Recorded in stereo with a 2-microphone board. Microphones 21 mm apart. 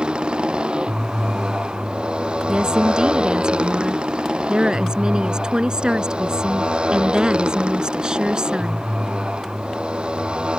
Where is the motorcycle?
55° right (ahead or behind); by 10.6 s 60° right (ahead or behind).